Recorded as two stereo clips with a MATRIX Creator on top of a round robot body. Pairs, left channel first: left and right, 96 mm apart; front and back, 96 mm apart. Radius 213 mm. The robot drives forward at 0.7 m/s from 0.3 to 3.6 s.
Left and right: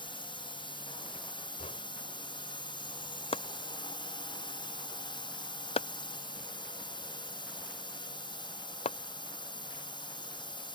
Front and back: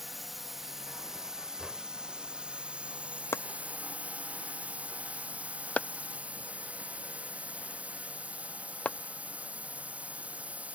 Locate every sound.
0.0 s a drone: 90° left; by 10.8 s 105° left
1.6 s knocking: 95° left; by 1.8 s 100° left
3.3 s chopping: 65° left; by 9.0 s 75° left